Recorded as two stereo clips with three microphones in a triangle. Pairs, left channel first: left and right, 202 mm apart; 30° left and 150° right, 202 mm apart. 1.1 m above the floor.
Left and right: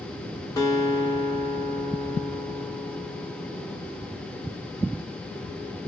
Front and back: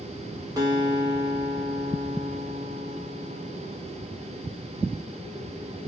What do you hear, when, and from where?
0.6 s a guitar: 150° left, 0.8 m